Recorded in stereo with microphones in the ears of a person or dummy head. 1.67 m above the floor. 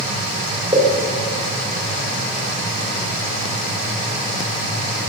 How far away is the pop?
About 3 m.